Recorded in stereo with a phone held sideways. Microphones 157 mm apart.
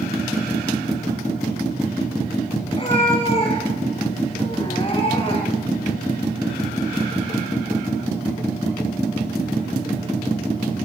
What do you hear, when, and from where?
2.7 s a cat meowing: 35° left (ahead or behind), 7.5 m; by 5.7 s 40° left (ahead or behind), 5.5 m